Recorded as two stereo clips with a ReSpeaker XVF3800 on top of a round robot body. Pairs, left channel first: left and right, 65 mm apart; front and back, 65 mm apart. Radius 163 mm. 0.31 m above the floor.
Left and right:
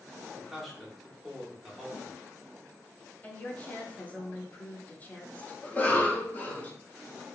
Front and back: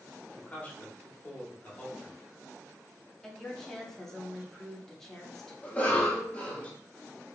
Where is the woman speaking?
75° left, 0.9 m.